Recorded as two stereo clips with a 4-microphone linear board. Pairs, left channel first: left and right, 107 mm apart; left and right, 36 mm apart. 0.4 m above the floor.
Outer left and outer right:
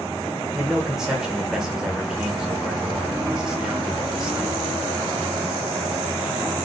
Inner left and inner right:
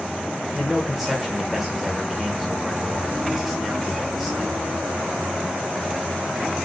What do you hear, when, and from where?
0.6 s a man speaking: 5° right (ahead or behind), 1.1 m